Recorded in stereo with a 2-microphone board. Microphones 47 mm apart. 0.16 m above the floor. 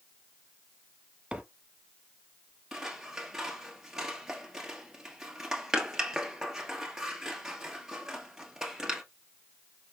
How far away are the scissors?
About 1.3 m.